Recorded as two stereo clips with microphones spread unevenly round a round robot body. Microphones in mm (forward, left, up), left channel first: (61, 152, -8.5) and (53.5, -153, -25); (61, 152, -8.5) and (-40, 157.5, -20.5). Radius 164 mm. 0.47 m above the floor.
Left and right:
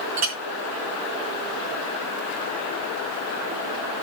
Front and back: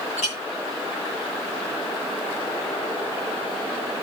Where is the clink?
55° right, 4 m.